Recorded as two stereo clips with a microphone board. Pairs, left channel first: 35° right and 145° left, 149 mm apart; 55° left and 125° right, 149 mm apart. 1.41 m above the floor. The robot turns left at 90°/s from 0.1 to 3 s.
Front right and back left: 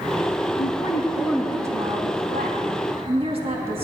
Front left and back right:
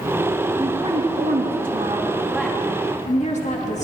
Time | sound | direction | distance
0.6 | a woman speaking | 45° right | 2.5 m